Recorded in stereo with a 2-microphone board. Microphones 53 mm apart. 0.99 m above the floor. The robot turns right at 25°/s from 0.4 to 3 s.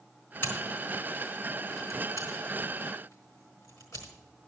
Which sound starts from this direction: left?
Scissors, at 0.4 s.